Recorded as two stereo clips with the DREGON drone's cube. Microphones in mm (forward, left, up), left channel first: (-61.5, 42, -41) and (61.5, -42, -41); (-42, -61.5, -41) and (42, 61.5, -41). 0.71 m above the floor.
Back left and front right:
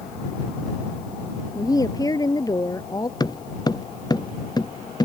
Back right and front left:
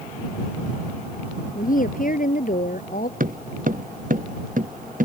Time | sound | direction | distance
1.6 | a woman speaking | 150° right | ?
3.2 | footsteps | 80° left | ?